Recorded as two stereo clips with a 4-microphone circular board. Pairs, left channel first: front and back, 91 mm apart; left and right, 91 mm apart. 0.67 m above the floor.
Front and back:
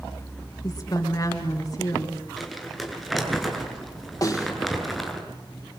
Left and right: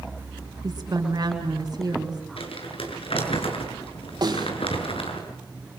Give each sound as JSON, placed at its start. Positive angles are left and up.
{"t": 0.6, "sound": "a woman speaking", "azimuth_deg": -45, "distance_m": 6.5}
{"t": 2.4, "sound": "crumpling", "azimuth_deg": 90, "distance_m": 7.5}
{"t": 4.2, "sound": "a snare drum", "azimuth_deg": -50, "distance_m": 6.0}